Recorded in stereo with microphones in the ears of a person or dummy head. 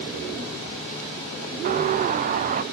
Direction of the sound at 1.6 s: 45° right (ahead or behind).